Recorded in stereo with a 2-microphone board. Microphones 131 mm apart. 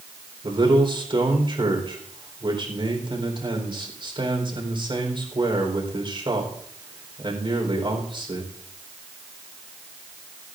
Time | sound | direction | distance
0.4 | a man speaking | 40° right (ahead or behind) | 4 m